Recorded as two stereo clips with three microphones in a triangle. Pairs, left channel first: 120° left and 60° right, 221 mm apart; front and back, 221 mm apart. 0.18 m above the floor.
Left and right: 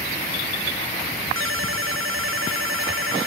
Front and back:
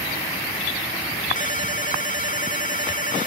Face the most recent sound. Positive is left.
turn(degrees=-50)